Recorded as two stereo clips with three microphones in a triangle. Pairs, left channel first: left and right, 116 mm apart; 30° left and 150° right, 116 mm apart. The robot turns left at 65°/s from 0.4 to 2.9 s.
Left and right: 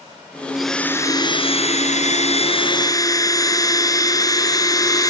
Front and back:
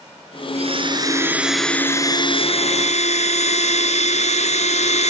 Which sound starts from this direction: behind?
A blender, at 0.6 s.